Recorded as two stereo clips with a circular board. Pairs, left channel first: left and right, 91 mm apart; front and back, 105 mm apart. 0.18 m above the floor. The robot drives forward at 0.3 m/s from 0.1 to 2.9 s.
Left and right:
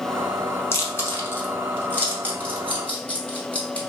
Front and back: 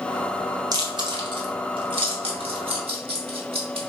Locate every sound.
0.7 s chewing: 140° left, 0.6 m; by 3.8 s 165° left, 1.1 m